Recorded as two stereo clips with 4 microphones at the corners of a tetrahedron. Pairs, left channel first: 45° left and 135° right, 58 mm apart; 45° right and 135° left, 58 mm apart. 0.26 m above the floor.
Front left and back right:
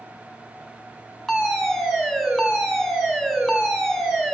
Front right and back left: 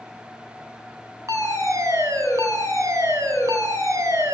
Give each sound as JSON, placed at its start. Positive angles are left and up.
{"t": 1.3, "sound": "a fire alarm", "azimuth_deg": 125, "distance_m": 5.5}